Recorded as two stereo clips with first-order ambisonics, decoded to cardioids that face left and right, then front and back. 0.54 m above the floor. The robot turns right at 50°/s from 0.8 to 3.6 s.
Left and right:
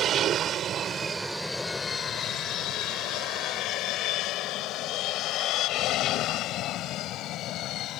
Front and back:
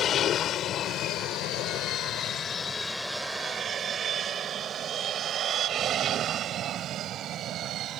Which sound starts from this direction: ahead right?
An aircraft, at 0.0 s.